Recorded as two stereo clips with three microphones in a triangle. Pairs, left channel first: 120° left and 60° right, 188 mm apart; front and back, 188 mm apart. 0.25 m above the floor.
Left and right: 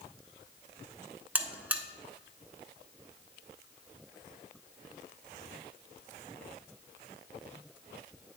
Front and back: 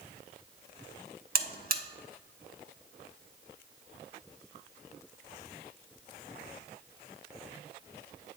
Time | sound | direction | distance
1.4 | a buzzer | 140° right | 0.6 m